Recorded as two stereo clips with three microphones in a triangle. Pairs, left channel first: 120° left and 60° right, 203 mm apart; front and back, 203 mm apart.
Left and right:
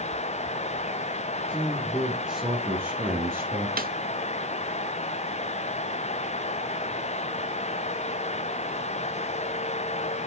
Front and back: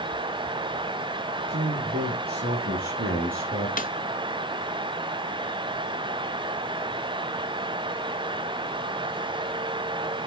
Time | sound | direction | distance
1.5 | a man speaking | 165° right | 3 m
3.8 | a snare drum | 35° right | 0.6 m